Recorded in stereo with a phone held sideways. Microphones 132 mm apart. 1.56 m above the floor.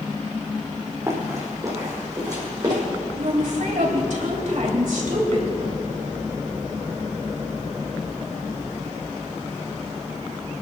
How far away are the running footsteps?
About 4.5 m.